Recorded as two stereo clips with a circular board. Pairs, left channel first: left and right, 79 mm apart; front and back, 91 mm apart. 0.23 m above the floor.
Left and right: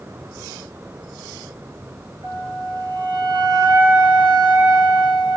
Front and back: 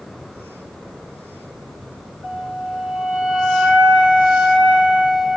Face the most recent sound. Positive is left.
turn(degrees=-100)